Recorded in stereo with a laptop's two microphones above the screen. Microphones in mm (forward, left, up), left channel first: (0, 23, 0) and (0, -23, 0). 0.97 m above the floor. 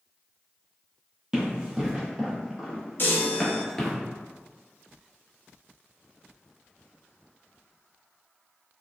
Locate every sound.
1.3 s running footsteps: 15° right (ahead or behind), 1.6 m; by 4.0 s 10° left (ahead or behind), 0.9 m
3.0 s a chime: 50° left (ahead or behind), 0.6 m